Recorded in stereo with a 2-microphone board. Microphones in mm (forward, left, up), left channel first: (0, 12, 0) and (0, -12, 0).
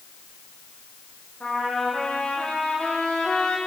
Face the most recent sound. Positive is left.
turn(degrees=70)  # may be behind; listen again after turning